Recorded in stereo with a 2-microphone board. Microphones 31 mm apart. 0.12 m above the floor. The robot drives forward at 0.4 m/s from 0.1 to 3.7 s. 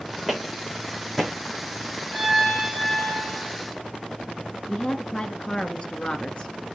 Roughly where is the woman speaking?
Left.